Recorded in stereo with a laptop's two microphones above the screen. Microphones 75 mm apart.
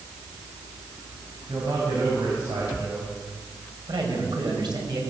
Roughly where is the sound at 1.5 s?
Right.